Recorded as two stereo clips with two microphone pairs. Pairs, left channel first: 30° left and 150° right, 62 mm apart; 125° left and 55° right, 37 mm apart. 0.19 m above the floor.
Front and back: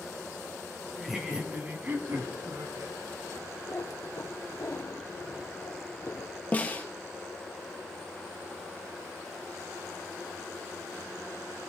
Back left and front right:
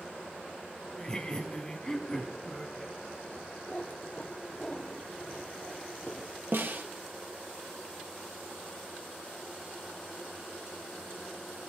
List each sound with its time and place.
0.9 s laughter: 115° left, 1.5 m; by 3.0 s 160° right, 2.5 m
3.7 s a cat meowing: 65° left, 1.9 m
6.5 s a snare drum: 30° right, 2.0 m